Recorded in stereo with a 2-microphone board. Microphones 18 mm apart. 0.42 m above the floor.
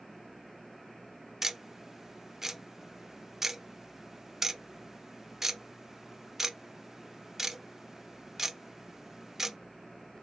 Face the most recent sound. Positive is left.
turn(degrees=-20)  # may be behind; listen again after turning